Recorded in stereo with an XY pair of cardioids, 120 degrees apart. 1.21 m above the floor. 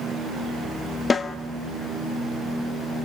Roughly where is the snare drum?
Ahead left.